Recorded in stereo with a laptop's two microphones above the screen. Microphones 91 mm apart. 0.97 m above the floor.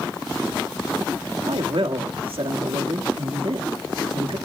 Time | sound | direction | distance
1.5 | a man speaking | 80° right | 1.7 m